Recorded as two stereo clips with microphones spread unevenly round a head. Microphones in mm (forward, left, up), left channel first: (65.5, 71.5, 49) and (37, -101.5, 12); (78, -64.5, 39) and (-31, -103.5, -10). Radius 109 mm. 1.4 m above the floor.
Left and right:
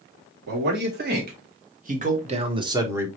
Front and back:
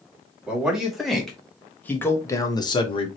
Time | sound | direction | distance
0.5 | a man speaking | 75° right | 3 m